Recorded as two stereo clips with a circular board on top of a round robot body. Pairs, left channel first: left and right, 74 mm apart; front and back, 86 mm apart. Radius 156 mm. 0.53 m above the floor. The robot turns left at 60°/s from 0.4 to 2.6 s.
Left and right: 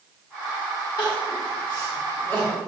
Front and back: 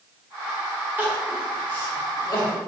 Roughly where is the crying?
Left.